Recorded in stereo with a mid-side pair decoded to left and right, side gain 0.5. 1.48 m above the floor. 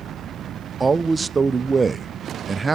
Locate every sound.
0.8 s a man speaking: 25° right, 0.5 m